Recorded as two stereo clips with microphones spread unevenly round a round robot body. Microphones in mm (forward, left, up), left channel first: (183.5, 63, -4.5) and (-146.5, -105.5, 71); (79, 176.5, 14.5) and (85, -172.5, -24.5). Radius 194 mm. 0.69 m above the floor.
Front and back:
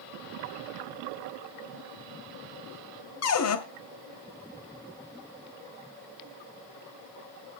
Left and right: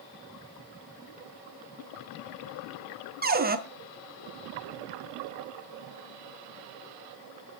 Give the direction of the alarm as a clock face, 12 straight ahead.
No alarm in this recording.